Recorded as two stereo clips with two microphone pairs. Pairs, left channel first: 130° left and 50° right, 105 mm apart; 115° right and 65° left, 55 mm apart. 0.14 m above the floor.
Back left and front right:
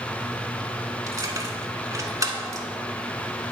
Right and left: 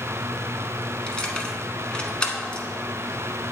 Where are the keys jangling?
55° right, 1.0 m.